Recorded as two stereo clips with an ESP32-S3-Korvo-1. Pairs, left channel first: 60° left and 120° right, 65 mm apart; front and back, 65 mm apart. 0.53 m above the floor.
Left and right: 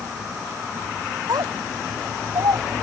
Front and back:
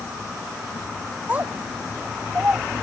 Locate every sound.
1.3 s a child speaking: 115° right